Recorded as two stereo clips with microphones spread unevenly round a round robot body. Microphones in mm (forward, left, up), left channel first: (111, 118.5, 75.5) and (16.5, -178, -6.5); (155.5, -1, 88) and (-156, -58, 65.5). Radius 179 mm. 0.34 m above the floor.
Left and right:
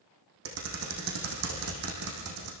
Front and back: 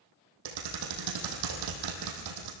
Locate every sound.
0.5 s typing on a keyboard: 160° right, 4 m